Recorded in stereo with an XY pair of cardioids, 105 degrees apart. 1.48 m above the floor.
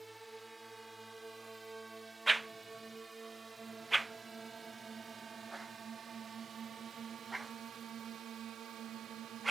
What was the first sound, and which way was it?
A drone, 15° right.